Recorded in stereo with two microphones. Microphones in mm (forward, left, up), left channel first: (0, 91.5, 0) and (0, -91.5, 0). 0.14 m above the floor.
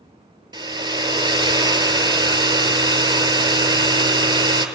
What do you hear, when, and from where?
0.5 s a hair dryer: 25° right (ahead or behind), 0.6 m